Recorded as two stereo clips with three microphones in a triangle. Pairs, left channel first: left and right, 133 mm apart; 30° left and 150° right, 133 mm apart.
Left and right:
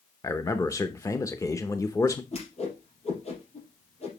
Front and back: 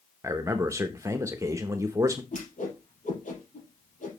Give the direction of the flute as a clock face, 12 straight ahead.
No flute in this recording.